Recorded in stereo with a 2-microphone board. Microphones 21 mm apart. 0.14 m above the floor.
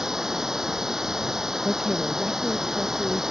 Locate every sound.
0.0 s running water: 25° right (ahead or behind)
1.6 s a woman speaking: 10° right (ahead or behind)